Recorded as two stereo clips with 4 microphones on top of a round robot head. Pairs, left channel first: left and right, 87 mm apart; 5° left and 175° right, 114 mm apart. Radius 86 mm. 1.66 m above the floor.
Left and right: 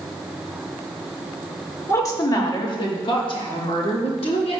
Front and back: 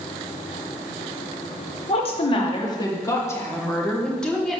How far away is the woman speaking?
About 1.9 m.